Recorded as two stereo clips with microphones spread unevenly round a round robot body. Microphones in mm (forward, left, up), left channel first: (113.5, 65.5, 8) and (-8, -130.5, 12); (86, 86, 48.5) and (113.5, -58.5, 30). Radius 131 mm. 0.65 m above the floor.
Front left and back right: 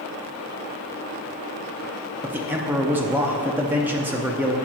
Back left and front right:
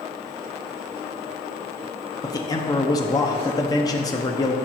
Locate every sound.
2.2 s a man speaking: 160° left, 0.7 m